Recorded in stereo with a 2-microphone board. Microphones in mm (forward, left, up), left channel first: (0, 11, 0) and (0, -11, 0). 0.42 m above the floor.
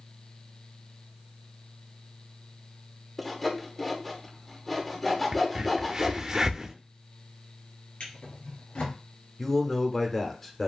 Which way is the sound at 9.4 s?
15° left (ahead or behind).